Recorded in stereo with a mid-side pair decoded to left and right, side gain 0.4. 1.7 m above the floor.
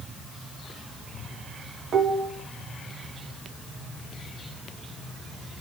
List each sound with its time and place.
1.9 s dishes clattering: 60° right, 3 m